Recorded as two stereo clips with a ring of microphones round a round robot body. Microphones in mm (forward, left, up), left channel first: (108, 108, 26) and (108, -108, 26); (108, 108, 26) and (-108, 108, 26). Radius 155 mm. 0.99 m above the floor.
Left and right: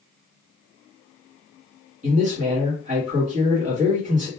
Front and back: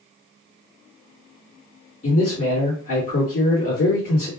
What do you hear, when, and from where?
2.0 s a man speaking: 40° right, 1.6 m